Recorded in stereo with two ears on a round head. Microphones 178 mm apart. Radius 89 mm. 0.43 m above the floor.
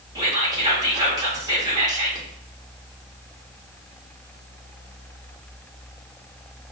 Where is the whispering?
20° right (ahead or behind), 0.9 m.